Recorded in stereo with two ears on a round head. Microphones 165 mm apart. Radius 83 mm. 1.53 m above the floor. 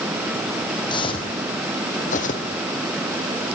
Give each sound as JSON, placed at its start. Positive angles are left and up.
{"t": 0.9, "sound": "footsteps", "side_deg": 25, "distance_m": 2.5}